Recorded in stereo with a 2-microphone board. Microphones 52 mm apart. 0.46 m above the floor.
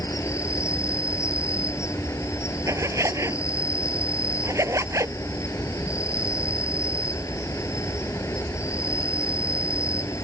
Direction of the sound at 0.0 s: 75° left (ahead or behind).